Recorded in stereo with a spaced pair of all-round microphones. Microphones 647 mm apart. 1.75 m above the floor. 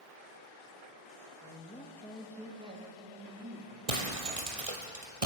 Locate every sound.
1.4 s a man speaking: 15° left (ahead or behind), 3.5 m; by 3.8 s 25° right (ahead or behind), 5 m
3.9 s breaking glass: 60° right (ahead or behind), 3.5 m